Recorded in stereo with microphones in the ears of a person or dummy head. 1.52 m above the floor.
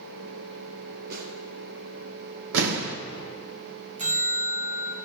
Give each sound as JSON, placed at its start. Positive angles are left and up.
{"t": 1.1, "sound": "a snare drum", "side_deg": -65, "distance_m": 3.0}
{"t": 2.5, "sound": "an explosion", "side_deg": -65, "distance_m": 1.0}
{"t": 4.0, "sound": "a bell", "side_deg": -30, "distance_m": 0.9}